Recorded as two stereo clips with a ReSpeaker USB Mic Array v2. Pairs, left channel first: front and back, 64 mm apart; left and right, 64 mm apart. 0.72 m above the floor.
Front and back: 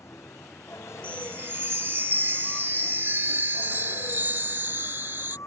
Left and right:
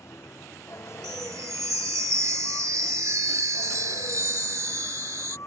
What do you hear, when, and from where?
0.0 s a vehicle: 45° left
1.0 s a chime: 125° right